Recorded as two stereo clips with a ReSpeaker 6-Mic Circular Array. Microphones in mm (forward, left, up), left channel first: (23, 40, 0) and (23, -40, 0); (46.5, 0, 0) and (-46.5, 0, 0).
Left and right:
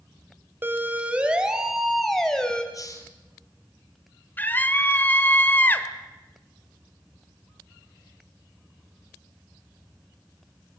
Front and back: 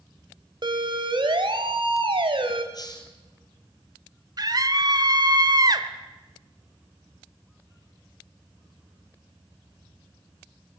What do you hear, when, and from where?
0.6 s a siren: 150° right, 2 m; by 2.6 s 170° left, 2.5 m
2.7 s a hiss: 45° left, 2.5 m
4.4 s a scream: 150° left, 1.7 m